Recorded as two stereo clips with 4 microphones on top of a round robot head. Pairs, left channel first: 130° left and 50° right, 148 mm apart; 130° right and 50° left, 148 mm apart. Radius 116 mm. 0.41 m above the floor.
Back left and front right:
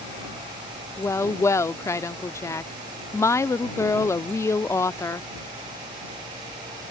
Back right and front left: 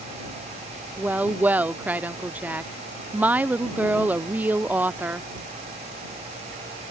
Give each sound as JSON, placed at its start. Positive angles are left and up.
{"t": 1.0, "sound": "a woman speaking", "azimuth_deg": 105}